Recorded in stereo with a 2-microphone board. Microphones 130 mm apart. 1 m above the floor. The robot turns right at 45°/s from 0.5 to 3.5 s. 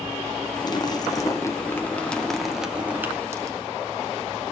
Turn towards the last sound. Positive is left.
turn(degrees=-130)